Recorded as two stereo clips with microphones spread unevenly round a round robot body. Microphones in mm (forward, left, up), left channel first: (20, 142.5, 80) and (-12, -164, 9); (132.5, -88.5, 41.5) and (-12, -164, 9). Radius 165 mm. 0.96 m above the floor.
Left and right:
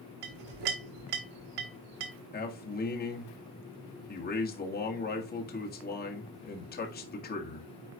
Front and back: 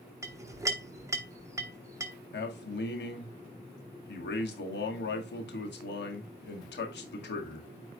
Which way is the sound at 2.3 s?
20° left.